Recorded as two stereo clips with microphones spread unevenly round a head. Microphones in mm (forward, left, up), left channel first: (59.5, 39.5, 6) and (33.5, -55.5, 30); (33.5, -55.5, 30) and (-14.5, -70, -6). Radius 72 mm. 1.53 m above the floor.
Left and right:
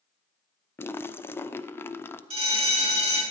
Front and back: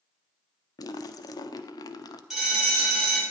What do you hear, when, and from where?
0.8 s a splash: 10° left, 0.6 m
2.3 s a bell: 85° right, 4 m